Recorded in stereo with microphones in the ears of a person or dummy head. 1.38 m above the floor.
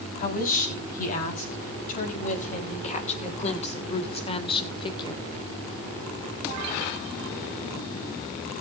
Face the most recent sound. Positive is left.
turn(degrees=25)  # may be behind; listen again after turning